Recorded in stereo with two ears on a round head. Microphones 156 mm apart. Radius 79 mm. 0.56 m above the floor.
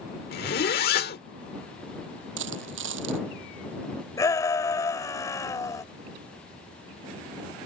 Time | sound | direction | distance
0.3 | a zipper | 55° left (ahead or behind) | ?
2.4 | a dropped coin | 80° right | ?
4.2 | a shout | 20° left (ahead or behind) | ?